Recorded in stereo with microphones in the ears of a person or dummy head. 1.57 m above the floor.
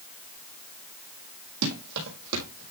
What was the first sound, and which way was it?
Running footsteps, 65° right (ahead or behind).